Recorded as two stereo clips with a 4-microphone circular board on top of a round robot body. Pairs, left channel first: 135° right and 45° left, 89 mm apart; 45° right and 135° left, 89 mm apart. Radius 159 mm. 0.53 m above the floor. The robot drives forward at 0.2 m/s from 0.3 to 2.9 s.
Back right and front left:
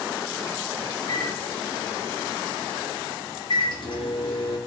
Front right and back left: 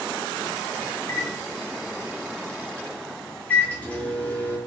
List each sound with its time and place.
1.0 s a microwave: 95° right, 1.1 m; by 4.6 s 115° right, 1.2 m